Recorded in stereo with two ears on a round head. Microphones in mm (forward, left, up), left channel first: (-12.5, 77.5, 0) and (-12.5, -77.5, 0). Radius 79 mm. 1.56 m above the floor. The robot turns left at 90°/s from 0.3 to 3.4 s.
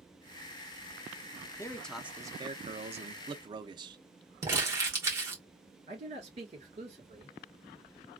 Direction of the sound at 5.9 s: 35° right (ahead or behind).